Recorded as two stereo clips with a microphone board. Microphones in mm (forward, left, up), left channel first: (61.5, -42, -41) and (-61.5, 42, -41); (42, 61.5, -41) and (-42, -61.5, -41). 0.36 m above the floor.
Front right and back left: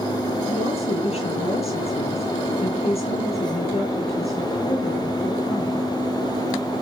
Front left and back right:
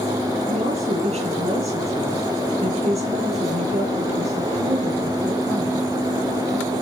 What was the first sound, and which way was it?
A woman speaking, 85° right.